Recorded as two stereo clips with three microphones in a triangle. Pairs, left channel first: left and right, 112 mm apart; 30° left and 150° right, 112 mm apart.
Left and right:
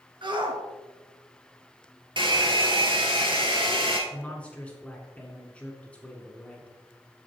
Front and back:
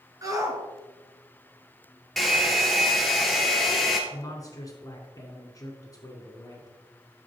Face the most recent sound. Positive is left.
turn(degrees=20)